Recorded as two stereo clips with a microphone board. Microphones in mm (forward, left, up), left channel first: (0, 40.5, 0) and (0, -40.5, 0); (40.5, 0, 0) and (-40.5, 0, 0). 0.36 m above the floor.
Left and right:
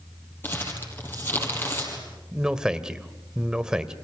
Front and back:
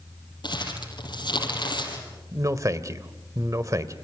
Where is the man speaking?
165° right, 1.5 m.